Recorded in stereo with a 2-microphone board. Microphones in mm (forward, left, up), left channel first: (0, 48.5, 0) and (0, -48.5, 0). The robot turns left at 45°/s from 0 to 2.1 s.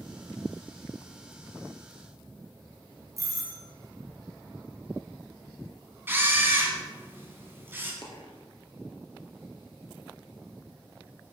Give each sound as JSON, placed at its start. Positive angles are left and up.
{"t": 3.2, "sound": "a doorbell", "side_deg": -35, "distance_m": 1.8}
{"t": 6.1, "sound": "a camera shutter", "side_deg": -20, "distance_m": 1.9}
{"t": 8.0, "sound": "a dropped coin", "side_deg": 55, "distance_m": 1.9}